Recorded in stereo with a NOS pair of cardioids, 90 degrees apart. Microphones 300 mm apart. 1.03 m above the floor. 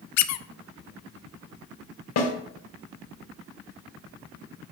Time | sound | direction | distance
0.2 | a squeak | 70° left | 0.6 m
2.2 | a snare drum | 60° left | 2.0 m